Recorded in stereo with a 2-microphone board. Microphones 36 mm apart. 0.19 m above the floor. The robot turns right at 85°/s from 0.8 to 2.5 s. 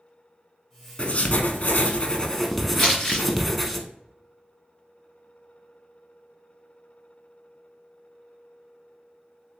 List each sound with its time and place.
1.0 s writing: 45° left, 0.6 m; by 3.8 s 175° left, 0.6 m
2.8 s crumpling: 35° left (ahead or behind), 1.8 m